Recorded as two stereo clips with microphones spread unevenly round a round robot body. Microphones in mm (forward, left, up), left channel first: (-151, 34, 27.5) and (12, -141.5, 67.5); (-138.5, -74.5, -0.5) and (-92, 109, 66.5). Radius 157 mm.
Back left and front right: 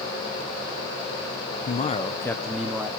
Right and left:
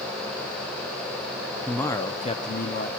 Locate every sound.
1.7 s a man speaking: 175° left, 0.9 m; by 2.9 s 130° right, 1.3 m